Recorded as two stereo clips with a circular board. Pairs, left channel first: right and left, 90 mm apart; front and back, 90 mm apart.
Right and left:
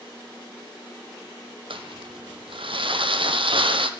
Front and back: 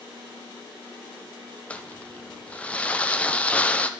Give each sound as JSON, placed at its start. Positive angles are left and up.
{"t": 1.7, "sound": "crumpling", "azimuth_deg": 75, "distance_m": 0.9}